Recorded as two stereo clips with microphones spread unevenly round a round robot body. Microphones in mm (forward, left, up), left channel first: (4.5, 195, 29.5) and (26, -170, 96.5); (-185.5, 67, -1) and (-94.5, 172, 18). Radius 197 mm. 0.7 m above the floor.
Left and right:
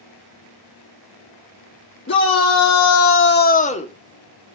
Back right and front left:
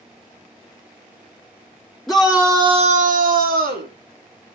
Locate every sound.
2.1 s a shout: 145° left, 1.5 m; by 3.9 s 20° left, 2.0 m